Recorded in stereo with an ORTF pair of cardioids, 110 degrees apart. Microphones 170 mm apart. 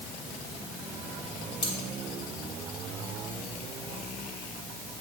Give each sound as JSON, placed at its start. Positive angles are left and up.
{"t": 1.6, "sound": "cutlery clinking", "azimuth_deg": 35, "distance_m": 2.0}